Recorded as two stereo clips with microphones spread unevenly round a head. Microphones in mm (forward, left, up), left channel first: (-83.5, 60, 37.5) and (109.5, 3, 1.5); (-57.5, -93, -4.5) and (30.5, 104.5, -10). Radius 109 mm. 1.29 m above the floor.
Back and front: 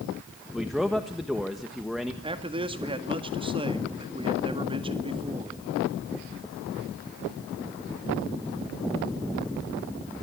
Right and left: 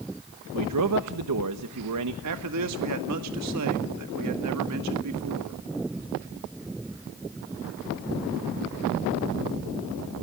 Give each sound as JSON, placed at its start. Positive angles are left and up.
{"t": 0.5, "sound": "a man speaking", "azimuth_deg": 70, "distance_m": 1.4}
{"t": 2.2, "sound": "a man speaking", "azimuth_deg": 50, "distance_m": 1.9}